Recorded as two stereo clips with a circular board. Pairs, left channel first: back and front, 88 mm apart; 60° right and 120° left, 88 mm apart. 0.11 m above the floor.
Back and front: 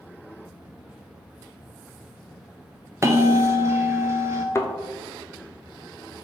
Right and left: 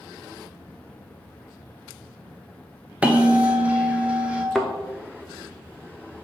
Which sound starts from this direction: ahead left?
A bell, at 3.0 s.